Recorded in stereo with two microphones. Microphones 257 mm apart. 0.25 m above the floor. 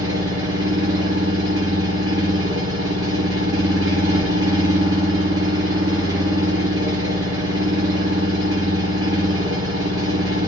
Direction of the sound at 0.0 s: 60° right (ahead or behind).